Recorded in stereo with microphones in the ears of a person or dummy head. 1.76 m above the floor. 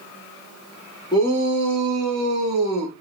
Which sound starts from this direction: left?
A shout, at 1.1 s.